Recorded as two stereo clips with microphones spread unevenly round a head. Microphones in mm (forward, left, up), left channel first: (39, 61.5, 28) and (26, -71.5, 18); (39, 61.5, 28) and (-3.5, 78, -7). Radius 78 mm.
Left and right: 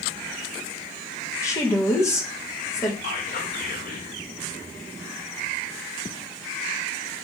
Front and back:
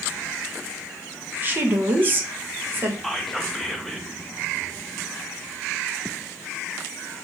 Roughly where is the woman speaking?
Behind left.